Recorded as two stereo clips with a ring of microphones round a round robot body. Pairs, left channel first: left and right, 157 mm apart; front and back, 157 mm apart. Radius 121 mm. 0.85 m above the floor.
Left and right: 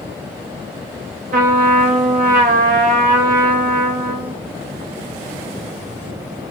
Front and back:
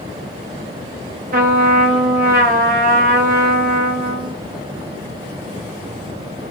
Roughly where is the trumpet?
Behind right.